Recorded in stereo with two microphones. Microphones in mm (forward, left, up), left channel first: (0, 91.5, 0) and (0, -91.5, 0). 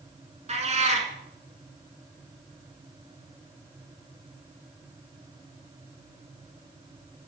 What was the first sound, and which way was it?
A cat meowing, 40° right (ahead or behind).